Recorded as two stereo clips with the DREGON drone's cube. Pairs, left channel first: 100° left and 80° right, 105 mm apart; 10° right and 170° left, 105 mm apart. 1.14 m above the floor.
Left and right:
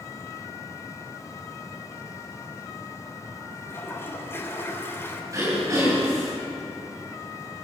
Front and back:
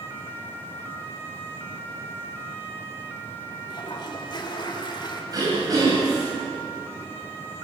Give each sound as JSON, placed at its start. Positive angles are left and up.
{"t": 3.7, "sound": "a toilet flushing", "azimuth_deg": 35, "distance_m": 3.0}
{"t": 5.3, "sound": "throat clearing", "azimuth_deg": -135, "distance_m": 9.5}